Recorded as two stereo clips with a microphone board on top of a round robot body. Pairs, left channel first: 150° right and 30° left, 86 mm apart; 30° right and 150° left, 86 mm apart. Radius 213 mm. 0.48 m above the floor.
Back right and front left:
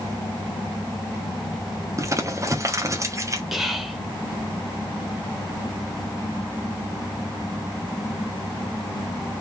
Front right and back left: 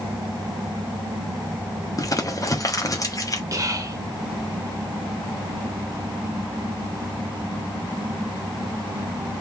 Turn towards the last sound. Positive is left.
turn(degrees=115)